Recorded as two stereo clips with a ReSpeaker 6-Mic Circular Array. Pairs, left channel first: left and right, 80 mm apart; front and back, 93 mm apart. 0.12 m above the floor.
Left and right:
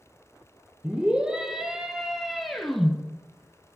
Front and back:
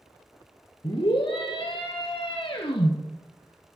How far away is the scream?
About 3.5 m.